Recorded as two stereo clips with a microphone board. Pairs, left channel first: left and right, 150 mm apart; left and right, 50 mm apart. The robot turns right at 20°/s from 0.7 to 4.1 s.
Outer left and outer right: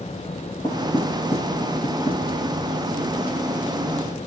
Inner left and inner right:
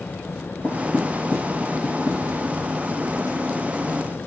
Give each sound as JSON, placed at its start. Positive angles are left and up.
{"t": 0.6, "sound": "knocking", "side_deg": 35, "distance_m": 4.0}